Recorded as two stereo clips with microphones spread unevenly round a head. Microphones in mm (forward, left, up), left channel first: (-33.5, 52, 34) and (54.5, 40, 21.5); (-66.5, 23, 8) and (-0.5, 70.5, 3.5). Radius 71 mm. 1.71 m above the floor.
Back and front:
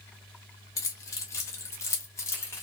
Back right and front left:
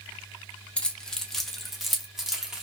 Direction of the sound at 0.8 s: 145° left.